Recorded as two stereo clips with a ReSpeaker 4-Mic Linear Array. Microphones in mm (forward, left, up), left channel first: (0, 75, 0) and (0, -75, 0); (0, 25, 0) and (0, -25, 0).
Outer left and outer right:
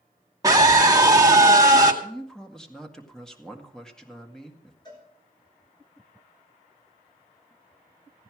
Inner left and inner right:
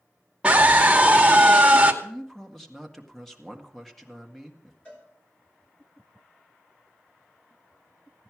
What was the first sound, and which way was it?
A scream, 25° right (ahead or behind).